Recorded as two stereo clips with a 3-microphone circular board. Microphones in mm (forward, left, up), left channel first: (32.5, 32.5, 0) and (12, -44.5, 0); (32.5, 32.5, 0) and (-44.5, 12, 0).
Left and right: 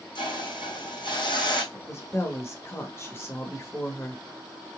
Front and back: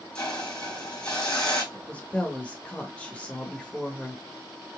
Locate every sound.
0.1 s a hiss: 95° left, 2.5 m
1.7 s a woman speaking: 75° left, 0.9 m